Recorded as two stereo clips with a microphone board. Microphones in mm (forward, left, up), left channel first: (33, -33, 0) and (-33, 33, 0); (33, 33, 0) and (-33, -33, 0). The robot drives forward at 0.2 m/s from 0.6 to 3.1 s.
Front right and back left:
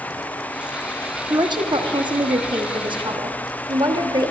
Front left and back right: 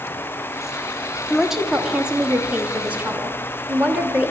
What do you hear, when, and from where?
1.3 s a woman speaking: 140° left, 0.7 m; by 4.3 s 155° left, 1.0 m